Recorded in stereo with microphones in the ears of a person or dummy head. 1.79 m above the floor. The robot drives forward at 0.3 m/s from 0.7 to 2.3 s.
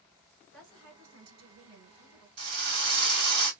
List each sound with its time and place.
0.5 s a woman speaking: 75° right (ahead or behind), 2 m; by 2.3 s 85° right, 2.0 m
2.4 s a drill: 55° right (ahead or behind), 2 m